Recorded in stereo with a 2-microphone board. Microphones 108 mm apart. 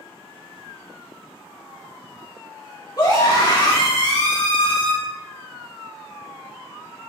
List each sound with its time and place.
3.0 s a scream: 40° left (ahead or behind), 1.6 m; by 4.9 s 55° left (ahead or behind), 3 m